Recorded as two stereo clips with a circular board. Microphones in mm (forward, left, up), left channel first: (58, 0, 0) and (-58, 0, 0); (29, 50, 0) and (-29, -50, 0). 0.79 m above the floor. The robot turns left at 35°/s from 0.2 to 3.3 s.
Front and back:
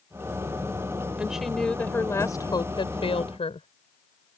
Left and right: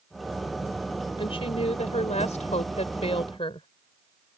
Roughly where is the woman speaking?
Left.